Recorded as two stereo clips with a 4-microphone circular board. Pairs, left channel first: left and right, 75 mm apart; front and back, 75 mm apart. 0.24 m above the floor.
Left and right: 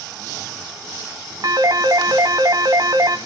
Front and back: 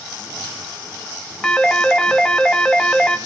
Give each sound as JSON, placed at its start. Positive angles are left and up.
{"t": 1.4, "sound": "a phone ringing", "azimuth_deg": -80, "distance_m": 1.2}